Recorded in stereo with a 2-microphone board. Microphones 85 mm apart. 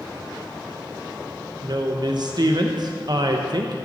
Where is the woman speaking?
55° right (ahead or behind), 1.0 m.